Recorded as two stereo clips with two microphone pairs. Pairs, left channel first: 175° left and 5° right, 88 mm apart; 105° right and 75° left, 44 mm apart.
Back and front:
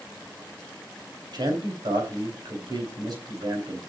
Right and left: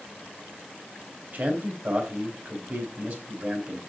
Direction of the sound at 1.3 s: 30° left.